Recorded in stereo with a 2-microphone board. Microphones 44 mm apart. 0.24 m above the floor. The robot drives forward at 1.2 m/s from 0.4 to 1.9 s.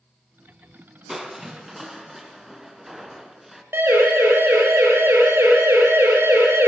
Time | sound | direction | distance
1.1 | crushing | 5° right (ahead or behind) | 2.5 m
3.7 | a siren | 65° right (ahead or behind) | 9.5 m